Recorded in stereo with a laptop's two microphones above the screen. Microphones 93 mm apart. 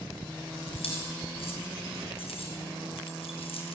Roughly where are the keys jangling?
Left.